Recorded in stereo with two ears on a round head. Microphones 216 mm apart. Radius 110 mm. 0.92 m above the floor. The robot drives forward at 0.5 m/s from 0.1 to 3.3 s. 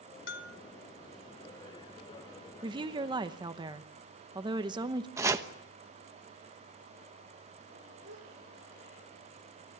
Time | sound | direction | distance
0.3 | a bell | 55° left (ahead or behind) | 1.6 m
2.6 | a woman speaking | 20° right (ahead or behind) | 0.9 m
5.2 | chopping | 10° right (ahead or behind) | 1.0 m
8.0 | a gasp | 50° right (ahead or behind) | 10 m